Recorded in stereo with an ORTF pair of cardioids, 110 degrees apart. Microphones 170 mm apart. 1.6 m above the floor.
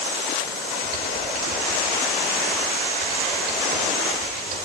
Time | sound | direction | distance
0.8 | typing on a keyboard | 60° right | 5 m